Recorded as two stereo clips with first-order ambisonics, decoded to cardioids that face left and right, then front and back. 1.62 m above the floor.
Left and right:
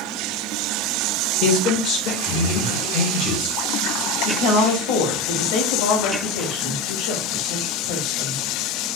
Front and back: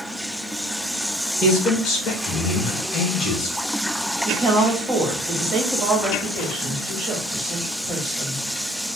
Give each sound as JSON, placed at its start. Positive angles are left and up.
{"t": 1.4, "sound": "a man speaking", "azimuth_deg": 60, "distance_m": 1.7}
{"t": 4.2, "sound": "a woman speaking", "azimuth_deg": 105, "distance_m": 1.8}